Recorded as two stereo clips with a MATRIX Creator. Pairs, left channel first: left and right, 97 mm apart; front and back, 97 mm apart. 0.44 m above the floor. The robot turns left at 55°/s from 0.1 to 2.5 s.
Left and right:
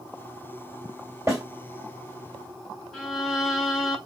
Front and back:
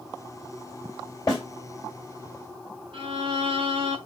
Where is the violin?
Straight behind, 0.8 m.